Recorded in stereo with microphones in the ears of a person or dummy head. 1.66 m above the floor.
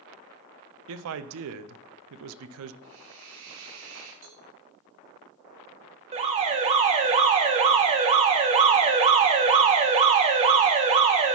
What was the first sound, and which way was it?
A man speaking, 75° right (ahead or behind).